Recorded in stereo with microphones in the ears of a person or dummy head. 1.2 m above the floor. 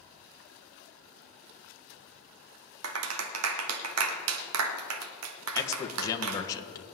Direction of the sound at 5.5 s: 25° left (ahead or behind).